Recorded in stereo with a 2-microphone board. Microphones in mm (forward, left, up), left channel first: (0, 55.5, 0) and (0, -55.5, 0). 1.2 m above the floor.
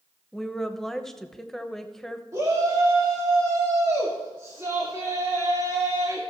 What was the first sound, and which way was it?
A woman speaking, 5° left (ahead or behind).